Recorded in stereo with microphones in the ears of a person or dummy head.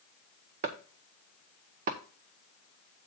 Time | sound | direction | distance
0.6 | chopping | 40° right (ahead or behind) | 0.6 m